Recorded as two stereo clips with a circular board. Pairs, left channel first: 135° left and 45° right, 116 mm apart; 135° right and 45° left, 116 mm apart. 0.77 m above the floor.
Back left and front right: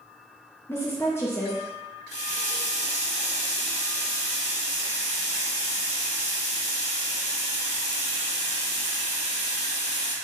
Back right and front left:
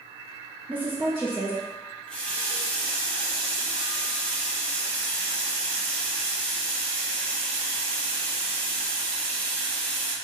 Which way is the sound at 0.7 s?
100° left.